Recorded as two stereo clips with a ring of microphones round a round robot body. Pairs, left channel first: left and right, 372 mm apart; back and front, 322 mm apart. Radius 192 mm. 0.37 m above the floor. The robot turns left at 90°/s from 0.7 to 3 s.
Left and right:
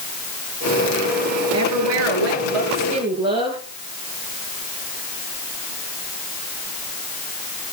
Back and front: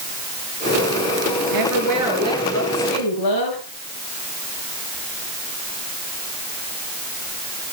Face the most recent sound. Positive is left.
turn(degrees=-170)